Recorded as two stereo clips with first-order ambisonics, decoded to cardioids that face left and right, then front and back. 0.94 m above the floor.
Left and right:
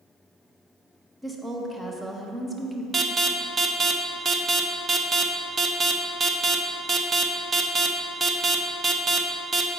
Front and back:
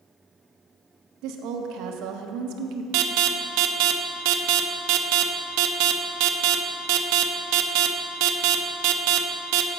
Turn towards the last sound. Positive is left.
turn(degrees=-160)